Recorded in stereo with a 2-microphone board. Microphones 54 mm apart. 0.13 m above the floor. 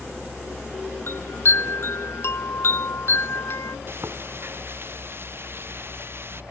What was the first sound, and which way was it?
A chime, 50° left (ahead or behind).